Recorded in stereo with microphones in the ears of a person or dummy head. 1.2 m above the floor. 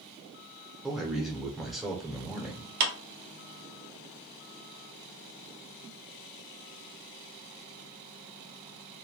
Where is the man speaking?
Centre (ahead or behind), 0.6 m.